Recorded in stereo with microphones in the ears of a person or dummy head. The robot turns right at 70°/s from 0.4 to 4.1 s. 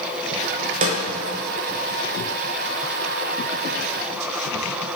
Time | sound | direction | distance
0.8 | a snare drum | 45° right (ahead or behind) | 0.9 m